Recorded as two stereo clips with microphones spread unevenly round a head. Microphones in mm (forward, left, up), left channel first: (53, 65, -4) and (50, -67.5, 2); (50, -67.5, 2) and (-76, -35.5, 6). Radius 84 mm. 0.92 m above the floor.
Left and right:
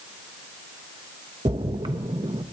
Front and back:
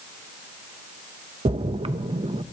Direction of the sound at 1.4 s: 155° right.